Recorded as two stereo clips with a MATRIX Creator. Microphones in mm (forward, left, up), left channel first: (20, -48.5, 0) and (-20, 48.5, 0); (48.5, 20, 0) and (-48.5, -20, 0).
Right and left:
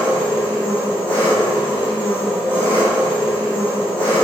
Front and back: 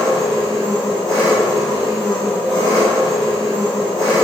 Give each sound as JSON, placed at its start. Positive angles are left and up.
{"t": 0.0, "sound": "an engine running", "azimuth_deg": -65, "distance_m": 1.3}